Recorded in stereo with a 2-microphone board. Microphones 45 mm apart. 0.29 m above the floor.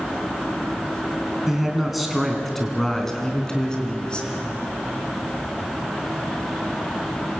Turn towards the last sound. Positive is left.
turn(degrees=20)  # may be behind; listen again after turning